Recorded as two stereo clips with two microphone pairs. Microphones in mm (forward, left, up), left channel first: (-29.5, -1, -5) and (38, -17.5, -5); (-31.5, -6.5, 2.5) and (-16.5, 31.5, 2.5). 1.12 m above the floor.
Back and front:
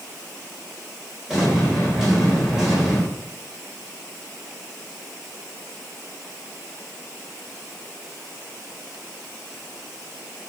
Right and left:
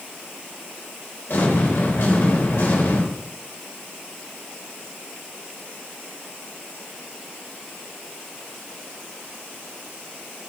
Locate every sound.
1.3 s an explosion: 95° right, 4.5 m